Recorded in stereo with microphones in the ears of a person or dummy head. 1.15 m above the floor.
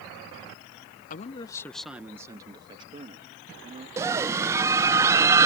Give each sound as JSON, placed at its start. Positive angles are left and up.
{"t": 1.1, "sound": "a man speaking", "side_deg": 40}
{"t": 4.0, "sound": "a scream", "side_deg": -15}